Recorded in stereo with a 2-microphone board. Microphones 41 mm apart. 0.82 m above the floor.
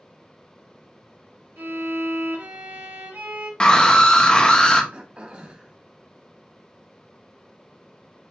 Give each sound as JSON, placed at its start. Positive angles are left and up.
{"t": 1.6, "sound": "a violin", "side_deg": -70, "distance_m": 1.5}
{"t": 3.6, "sound": "a scream", "side_deg": 20, "distance_m": 0.8}
{"t": 4.9, "sound": "throat clearing", "side_deg": -25, "distance_m": 0.7}